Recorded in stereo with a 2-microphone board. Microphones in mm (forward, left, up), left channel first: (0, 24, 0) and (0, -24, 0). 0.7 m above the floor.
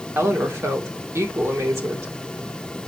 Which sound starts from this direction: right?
A woman speaking, at 0.1 s.